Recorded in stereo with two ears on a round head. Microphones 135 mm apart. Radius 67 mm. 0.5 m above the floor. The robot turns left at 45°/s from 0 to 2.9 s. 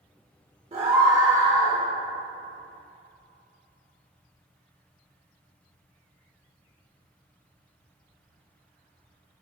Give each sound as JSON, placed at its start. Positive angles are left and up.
{"t": 0.7, "sound": "a scream", "azimuth_deg": -125, "distance_m": 1.4}